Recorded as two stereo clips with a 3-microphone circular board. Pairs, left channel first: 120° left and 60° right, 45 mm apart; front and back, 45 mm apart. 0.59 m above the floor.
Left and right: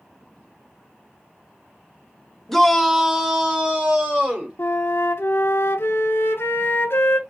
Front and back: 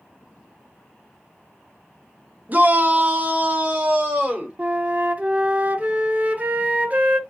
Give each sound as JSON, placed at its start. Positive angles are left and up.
{"t": 2.5, "sound": "a shout", "azimuth_deg": -160, "distance_m": 0.8}
{"t": 4.6, "sound": "a flute", "azimuth_deg": 130, "distance_m": 0.7}